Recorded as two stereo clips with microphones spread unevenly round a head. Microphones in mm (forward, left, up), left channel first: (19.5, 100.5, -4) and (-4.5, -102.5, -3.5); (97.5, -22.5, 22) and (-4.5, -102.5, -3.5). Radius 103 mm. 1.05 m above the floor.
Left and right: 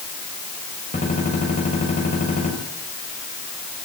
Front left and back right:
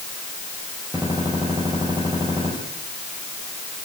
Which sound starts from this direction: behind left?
A gunshot, at 0.9 s.